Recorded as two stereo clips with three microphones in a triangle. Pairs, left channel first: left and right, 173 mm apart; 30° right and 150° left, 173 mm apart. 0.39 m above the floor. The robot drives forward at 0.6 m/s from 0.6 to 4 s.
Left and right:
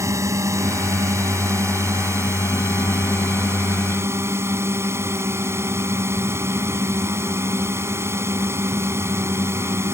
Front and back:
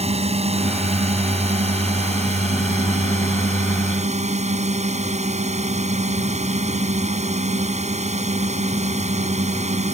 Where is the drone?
160° right; by 10.0 s 165° right.